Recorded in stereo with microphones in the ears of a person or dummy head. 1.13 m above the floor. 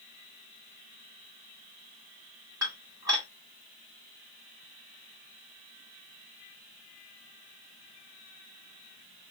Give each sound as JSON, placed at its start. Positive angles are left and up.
{"t": 2.6, "sound": "dishes clattering", "side_deg": -15, "distance_m": 1.4}